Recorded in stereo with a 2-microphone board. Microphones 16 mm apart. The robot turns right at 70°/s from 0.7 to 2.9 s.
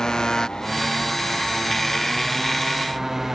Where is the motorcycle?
55° left; by 3.4 s 150° right.